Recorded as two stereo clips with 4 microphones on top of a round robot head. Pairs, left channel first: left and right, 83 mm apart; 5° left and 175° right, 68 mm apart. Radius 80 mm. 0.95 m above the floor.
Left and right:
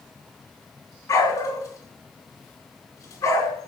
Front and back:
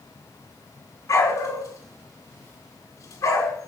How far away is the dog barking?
About 4.5 m.